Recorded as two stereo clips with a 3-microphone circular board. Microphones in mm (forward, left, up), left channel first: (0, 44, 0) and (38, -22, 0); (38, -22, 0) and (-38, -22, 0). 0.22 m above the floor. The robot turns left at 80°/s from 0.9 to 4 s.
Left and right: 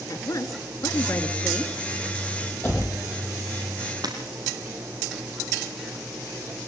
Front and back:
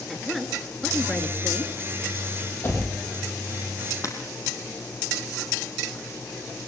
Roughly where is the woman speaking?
Left.